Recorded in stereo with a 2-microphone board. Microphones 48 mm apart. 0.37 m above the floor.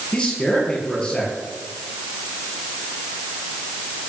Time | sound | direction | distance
0.1 | a man speaking | 10° left (ahead or behind) | 8 m